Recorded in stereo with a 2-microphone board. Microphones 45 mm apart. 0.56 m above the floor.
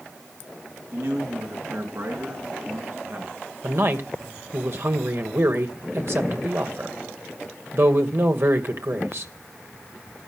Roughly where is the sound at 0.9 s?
Right.